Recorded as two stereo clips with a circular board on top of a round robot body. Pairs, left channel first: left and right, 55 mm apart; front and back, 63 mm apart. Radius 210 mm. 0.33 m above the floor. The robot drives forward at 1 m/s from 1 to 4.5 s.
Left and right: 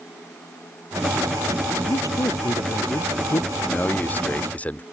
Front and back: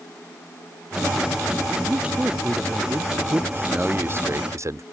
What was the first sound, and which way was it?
A man speaking, 110° left.